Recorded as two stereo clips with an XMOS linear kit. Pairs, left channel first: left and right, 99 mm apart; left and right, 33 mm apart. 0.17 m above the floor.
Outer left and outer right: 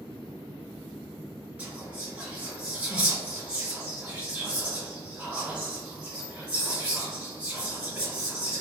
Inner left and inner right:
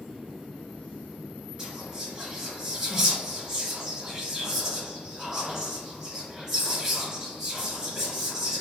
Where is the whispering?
10° right (ahead or behind), 1.7 m.